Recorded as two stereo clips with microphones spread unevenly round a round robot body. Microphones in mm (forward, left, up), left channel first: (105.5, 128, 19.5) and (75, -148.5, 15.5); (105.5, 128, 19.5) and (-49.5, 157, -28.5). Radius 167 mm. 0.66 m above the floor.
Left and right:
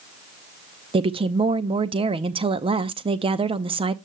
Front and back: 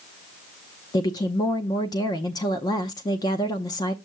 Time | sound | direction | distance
0.9 | a woman speaking | 80° right | 0.5 m